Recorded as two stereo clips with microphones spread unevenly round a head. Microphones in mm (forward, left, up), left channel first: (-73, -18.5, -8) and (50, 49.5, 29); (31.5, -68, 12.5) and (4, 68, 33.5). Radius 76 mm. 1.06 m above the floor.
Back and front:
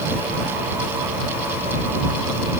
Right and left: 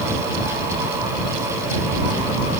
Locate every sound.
Only background noise.